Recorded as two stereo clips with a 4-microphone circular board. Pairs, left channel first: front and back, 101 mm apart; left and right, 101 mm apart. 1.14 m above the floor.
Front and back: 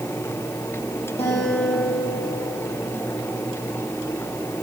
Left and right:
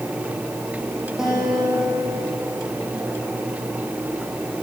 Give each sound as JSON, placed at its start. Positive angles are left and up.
{"t": 1.2, "sound": "a guitar", "azimuth_deg": -5, "distance_m": 10.0}